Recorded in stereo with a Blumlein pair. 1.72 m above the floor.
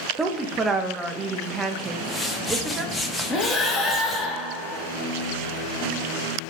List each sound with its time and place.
0.2 s a woman speaking: 15° right, 0.8 m
1.9 s a whoosh: 5° left, 0.7 m
3.3 s breathing: 15° left, 1.0 m